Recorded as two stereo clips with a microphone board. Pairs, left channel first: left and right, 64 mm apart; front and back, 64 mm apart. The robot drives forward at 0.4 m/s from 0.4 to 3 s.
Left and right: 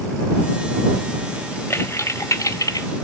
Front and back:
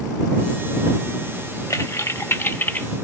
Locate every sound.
1.7 s typing on a keyboard: 35° left, 0.9 m; by 2.9 s 65° left, 0.6 m